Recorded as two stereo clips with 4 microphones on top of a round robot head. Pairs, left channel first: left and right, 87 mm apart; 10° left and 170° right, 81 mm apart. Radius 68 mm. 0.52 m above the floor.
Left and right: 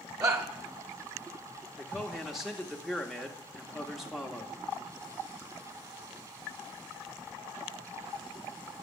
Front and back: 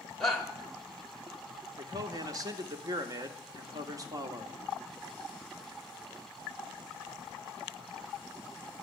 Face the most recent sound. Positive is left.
turn(degrees=-175)